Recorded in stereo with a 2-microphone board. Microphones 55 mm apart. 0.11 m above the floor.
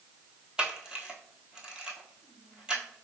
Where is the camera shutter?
15° right (ahead or behind), 1.0 m.